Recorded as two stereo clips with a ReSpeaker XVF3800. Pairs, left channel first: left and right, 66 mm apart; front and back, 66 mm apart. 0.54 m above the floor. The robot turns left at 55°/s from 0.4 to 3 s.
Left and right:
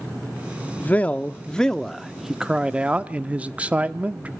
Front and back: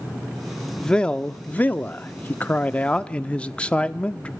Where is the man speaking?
70° left, 0.7 m; by 4.3 s 50° right, 0.7 m.